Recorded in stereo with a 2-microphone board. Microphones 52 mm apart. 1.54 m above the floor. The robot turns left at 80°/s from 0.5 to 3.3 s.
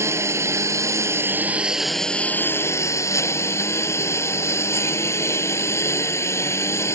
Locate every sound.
0.0 s a lawn mower: 70° right; by 7.0 s 65° left